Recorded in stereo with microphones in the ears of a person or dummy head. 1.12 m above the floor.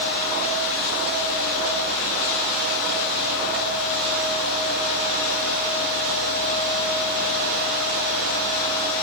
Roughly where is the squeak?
No squeak in this recording.